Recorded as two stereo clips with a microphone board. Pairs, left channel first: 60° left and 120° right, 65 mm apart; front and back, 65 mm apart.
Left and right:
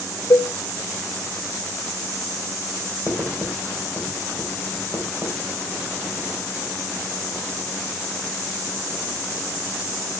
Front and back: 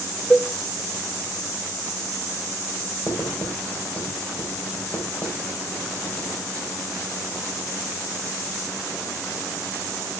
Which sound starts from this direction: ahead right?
Writing, at 3.1 s.